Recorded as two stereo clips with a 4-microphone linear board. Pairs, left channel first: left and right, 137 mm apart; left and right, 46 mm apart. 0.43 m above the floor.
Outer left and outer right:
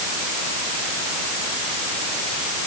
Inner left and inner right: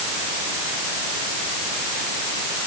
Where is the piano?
I don't hear a piano.